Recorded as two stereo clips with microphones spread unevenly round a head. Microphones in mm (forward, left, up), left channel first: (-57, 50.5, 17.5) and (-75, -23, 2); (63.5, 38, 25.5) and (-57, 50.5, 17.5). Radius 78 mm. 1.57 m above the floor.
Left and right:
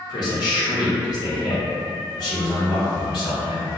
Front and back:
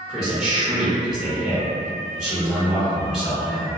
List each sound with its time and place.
0.1 s a man speaking: 85° left, 0.8 m